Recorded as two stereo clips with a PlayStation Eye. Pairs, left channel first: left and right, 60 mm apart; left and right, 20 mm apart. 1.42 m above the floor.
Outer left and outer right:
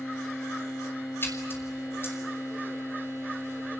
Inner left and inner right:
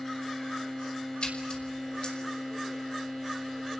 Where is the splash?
40° left (ahead or behind), 5 m.